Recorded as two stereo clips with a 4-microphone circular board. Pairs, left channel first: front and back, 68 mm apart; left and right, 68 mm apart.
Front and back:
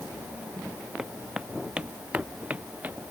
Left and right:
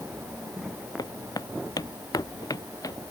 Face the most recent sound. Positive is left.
turn(degrees=110)